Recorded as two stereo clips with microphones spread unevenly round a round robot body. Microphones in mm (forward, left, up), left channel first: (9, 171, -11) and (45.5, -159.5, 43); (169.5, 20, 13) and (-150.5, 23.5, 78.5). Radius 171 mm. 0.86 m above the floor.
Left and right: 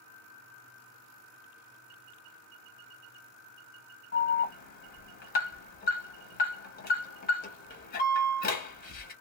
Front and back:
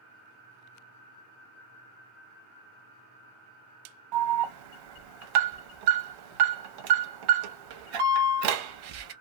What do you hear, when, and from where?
4.1 s an alarm: 160° left, 1.0 m